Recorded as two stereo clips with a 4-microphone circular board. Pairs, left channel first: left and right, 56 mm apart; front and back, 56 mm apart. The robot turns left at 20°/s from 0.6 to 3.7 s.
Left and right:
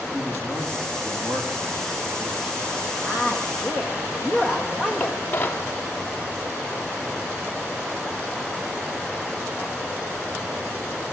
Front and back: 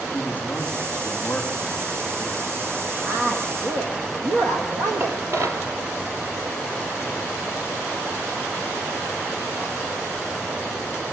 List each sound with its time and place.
0.1 s a man speaking: 60° right, 7.5 m; by 2.7 s 105° right, 7.5 m
3.0 s a woman speaking: 150° right, 6 m; by 5.2 s 165° right, 6 m
5.0 s dishes clattering: 150° left, 2.5 m